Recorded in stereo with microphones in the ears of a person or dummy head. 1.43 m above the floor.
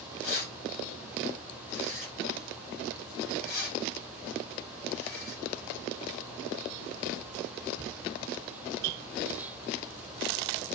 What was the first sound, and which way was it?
Keys jangling, 65° left (ahead or behind).